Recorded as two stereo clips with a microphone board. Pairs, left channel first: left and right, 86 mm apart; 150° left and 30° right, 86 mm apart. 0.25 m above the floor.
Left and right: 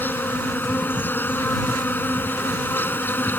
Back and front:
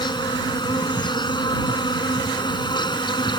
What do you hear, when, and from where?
0.0 s an insect: 155° left